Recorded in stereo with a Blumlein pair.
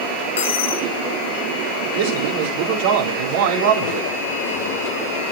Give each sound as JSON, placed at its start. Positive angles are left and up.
{"t": 0.4, "sound": "a dropped coin", "azimuth_deg": 60, "distance_m": 3.5}
{"t": 1.9, "sound": "a man speaking", "azimuth_deg": -50, "distance_m": 4.0}